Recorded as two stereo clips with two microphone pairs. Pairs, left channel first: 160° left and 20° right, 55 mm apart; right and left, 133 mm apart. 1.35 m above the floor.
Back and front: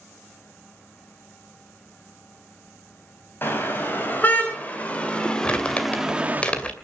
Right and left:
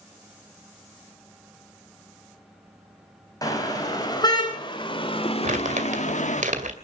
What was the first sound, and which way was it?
A car horn, 150° right.